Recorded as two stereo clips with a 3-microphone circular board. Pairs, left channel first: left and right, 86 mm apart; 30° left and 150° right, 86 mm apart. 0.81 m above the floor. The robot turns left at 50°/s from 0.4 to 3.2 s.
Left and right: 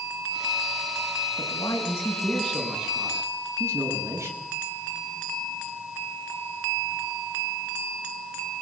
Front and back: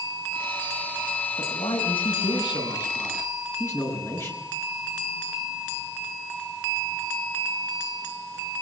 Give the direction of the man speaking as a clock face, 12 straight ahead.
10 o'clock.